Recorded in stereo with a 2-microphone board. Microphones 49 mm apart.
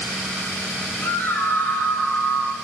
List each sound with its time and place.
1.0 s a scream: 50° left (ahead or behind), 5 m